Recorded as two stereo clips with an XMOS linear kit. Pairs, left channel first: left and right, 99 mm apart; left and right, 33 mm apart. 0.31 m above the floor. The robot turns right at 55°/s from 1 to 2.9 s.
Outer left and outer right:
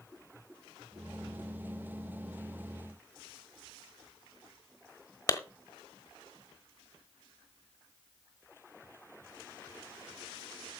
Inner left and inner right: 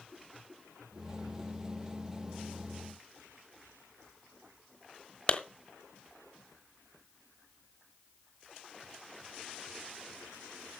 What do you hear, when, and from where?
5.3 s a clap: 30° left (ahead or behind), 1.3 m